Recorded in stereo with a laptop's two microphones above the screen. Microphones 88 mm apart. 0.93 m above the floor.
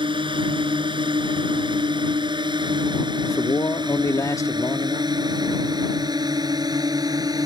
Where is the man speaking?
40° left (ahead or behind).